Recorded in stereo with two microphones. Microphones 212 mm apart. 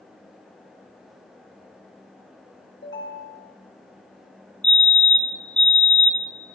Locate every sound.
2.8 s a ringtone: 60° left (ahead or behind), 2.5 m
4.6 s a fire alarm: 20° right (ahead or behind), 1.4 m